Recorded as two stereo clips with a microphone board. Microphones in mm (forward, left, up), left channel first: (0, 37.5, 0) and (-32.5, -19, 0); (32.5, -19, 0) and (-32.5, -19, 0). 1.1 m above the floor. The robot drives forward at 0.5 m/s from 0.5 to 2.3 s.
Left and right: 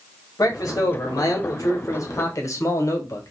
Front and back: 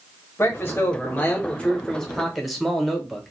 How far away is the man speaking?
About 1.4 m.